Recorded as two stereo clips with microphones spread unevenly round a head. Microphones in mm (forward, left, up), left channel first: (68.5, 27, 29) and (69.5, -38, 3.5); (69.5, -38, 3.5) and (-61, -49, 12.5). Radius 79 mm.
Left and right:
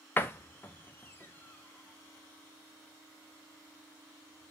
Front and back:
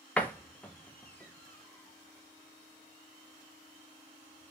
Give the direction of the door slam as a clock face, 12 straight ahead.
9 o'clock.